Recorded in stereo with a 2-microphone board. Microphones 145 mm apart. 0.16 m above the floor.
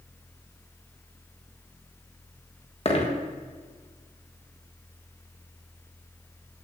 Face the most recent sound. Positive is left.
turn(degrees=45)  # may be behind; listen again after turning